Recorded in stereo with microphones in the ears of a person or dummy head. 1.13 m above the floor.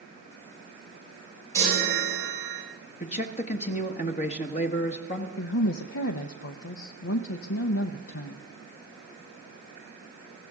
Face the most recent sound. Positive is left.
turn(degrees=70)  # may be behind; listen again after turning